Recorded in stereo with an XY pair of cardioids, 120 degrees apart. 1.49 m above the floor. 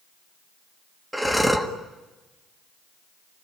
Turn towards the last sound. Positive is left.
turn(degrees=-5)